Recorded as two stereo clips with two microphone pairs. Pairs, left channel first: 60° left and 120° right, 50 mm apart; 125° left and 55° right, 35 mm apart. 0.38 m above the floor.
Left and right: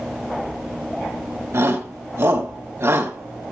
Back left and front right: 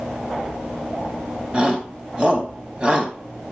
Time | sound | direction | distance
1.5 | a shout | 110° right | 3.5 m